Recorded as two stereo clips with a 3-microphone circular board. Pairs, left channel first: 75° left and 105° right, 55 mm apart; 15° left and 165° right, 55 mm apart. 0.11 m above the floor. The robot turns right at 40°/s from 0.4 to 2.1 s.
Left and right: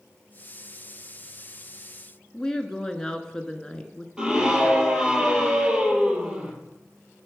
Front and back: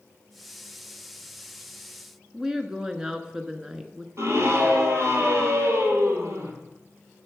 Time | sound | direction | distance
2.3 | a woman speaking | 135° left | 1.2 m
4.2 | a scream | 175° right | 2.5 m